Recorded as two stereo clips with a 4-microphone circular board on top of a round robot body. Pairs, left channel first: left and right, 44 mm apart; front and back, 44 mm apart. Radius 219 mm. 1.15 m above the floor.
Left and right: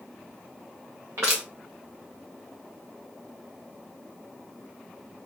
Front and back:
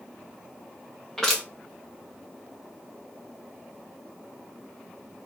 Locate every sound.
1.2 s crushing: 75° right, 0.6 m